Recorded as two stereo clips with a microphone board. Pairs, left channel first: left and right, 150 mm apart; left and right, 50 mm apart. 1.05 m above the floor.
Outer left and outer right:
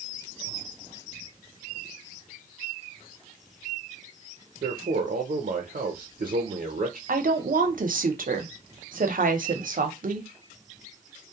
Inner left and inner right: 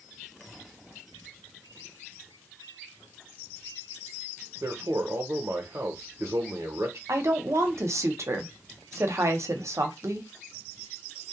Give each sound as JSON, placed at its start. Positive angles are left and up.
{"t": 4.6, "sound": "a man speaking", "side_deg": -65, "distance_m": 0.5}
{"t": 7.1, "sound": "a woman speaking", "side_deg": -65, "distance_m": 0.6}